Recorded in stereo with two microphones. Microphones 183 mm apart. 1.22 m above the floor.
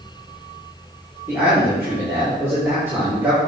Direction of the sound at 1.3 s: 15° right (ahead or behind).